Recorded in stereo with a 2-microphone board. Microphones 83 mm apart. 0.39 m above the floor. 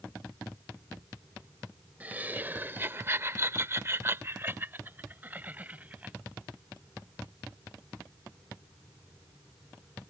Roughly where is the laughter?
Right.